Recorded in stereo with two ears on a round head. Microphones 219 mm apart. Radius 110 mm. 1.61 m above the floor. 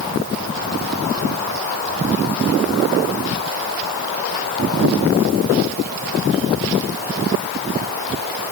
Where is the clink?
No clink in this recording.